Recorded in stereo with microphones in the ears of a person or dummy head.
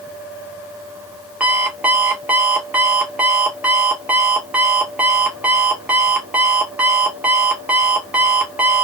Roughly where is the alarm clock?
Centre.